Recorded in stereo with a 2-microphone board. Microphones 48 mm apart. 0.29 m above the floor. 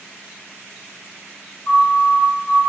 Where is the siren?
65° left (ahead or behind), 6 m.